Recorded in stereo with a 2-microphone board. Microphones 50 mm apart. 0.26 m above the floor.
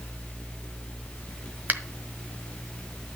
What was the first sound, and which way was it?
A finger snap, 35° right (ahead or behind).